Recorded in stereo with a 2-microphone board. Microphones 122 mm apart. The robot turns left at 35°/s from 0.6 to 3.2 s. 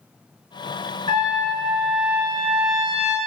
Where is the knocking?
I don't hear knocking.